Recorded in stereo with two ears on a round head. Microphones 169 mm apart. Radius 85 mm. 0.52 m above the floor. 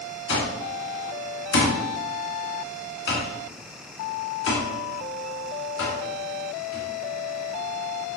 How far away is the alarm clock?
About 3 m.